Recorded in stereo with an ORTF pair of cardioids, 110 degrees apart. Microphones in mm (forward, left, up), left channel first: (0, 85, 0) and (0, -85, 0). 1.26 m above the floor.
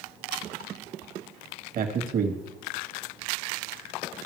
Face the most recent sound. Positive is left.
turn(degrees=-60)